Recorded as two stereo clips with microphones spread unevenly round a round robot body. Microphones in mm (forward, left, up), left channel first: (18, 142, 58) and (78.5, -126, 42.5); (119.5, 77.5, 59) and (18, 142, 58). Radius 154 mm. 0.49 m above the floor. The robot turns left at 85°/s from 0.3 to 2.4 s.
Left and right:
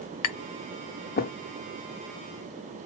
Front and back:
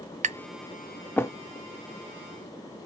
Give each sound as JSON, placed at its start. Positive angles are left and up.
{"t": 0.2, "sound": "tapping", "azimuth_deg": 120, "distance_m": 0.5}